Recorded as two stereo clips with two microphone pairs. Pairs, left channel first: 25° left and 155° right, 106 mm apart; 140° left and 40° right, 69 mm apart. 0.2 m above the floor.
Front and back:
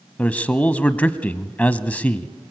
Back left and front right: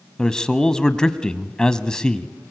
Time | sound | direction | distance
0.2 | a man speaking | 80° left | 1.1 m